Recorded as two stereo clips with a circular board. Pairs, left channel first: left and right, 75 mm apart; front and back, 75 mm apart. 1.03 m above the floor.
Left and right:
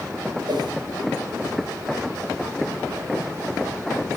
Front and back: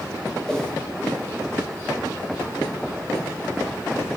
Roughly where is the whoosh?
Right.